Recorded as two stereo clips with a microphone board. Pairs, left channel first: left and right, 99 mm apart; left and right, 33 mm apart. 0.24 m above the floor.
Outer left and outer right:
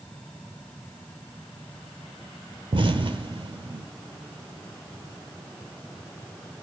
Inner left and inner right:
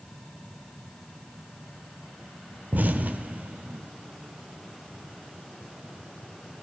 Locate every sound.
2.7 s an explosion: 60° right (ahead or behind), 0.8 m